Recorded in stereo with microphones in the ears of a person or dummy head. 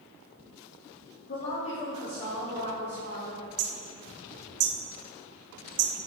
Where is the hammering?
55° right (ahead or behind), 1.3 m.